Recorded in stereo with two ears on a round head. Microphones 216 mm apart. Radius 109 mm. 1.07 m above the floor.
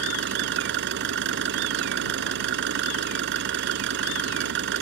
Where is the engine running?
45° right (ahead or behind).